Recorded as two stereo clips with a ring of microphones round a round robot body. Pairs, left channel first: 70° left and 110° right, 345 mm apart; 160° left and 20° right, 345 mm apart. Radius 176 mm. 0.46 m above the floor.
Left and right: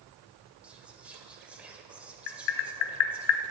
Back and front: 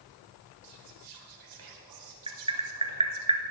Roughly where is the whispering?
Ahead right.